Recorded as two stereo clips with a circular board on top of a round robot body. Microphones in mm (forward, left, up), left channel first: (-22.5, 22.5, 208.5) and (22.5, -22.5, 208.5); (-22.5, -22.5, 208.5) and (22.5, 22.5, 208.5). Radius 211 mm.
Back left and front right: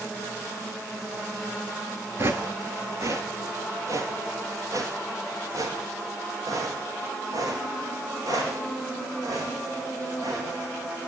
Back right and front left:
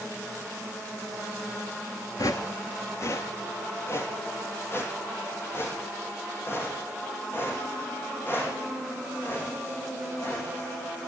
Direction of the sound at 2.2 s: 100° right.